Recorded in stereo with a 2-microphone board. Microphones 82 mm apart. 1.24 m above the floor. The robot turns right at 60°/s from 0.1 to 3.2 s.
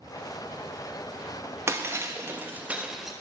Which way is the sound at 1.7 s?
90° right.